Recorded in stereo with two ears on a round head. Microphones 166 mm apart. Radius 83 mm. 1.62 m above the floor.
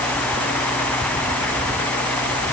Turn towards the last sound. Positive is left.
No sound to turn to.